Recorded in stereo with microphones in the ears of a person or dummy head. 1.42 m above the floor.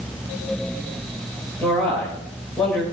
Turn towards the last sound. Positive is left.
turn(degrees=5)  # may be behind; listen again after turning